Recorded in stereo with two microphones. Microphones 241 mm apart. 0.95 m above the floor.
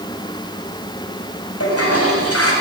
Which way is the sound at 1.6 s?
75° left (ahead or behind).